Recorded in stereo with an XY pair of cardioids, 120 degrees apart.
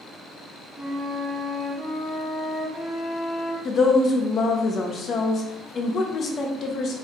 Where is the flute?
5° right, 1.4 m.